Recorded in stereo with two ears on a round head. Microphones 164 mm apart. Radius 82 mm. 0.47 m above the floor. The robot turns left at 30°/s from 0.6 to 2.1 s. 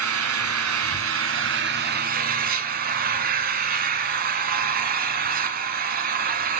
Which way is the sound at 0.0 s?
85° right.